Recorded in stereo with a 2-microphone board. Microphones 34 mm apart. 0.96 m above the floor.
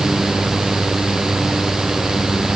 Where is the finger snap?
I don't hear a finger snap.